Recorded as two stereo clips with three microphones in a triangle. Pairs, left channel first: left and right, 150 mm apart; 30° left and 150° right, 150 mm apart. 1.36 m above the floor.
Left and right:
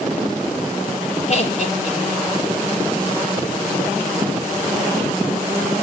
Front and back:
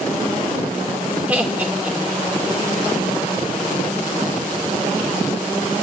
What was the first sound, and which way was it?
Laughter, 130° left.